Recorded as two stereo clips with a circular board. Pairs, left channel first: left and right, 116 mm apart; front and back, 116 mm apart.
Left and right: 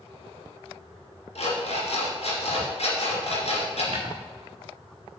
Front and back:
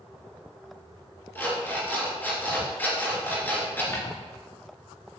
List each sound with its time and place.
1.4 s an alarm clock: 75° left, 2.5 m
3.9 s footsteps: 60° right, 3 m